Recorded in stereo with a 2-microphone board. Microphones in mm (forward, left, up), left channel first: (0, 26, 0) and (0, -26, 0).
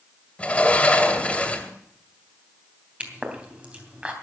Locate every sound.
0.4 s a sliding door: 25° left (ahead or behind), 1.9 m
3.0 s a pop: 25° right (ahead or behind), 3 m